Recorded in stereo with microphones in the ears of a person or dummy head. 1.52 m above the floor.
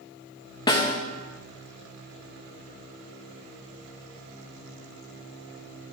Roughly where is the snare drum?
Centre.